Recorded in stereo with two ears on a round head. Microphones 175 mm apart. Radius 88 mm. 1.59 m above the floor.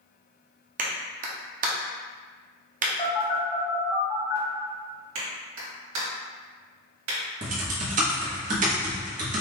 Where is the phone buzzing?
30° left (ahead or behind), 1.6 m.